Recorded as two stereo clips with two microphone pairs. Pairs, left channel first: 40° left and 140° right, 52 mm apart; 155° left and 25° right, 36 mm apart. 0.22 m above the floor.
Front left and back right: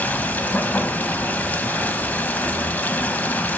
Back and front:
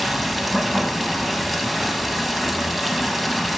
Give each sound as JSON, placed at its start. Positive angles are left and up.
{"t": 0.0, "sound": "running water", "azimuth_deg": 60, "distance_m": 0.9}